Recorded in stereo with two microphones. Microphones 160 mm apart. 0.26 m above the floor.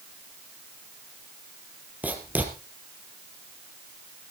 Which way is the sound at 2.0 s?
10° right (ahead or behind).